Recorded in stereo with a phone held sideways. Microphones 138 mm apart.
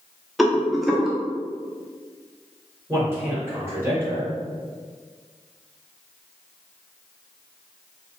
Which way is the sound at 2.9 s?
20° right (ahead or behind).